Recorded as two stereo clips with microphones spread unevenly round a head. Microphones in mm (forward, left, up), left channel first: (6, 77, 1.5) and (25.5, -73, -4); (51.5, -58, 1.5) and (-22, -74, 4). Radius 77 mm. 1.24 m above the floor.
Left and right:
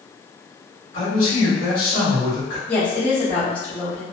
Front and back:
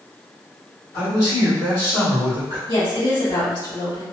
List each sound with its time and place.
0.9 s a man speaking: 50° left, 1.6 m
2.7 s a woman speaking: 15° left, 1.7 m